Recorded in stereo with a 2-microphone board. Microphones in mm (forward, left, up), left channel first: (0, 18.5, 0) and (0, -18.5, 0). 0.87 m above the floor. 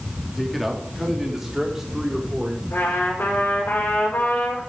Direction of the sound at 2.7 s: 75° left (ahead or behind).